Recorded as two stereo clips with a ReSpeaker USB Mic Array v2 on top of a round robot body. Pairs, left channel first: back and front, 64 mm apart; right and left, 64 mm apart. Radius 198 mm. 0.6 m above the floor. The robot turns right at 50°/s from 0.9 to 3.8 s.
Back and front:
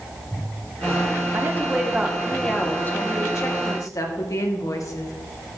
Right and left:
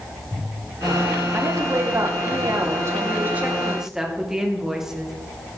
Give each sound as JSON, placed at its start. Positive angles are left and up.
{"t": 1.3, "sound": "a woman speaking", "azimuth_deg": 50, "distance_m": 2.0}